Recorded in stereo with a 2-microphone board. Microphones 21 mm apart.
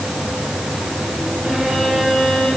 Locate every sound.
1.4 s a violin: 50° right (ahead or behind), 10 m